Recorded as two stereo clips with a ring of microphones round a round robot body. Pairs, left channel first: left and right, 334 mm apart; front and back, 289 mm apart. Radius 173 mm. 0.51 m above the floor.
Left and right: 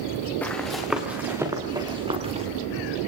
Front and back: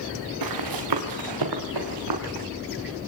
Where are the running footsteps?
175° left, 4 m; by 2.5 s 160° right, 5 m.